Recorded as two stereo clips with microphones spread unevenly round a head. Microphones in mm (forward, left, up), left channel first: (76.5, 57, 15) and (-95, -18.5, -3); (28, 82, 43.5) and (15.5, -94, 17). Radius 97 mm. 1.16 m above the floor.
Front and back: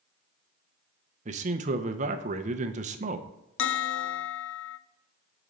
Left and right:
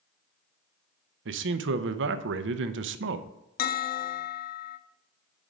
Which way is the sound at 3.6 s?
45° left.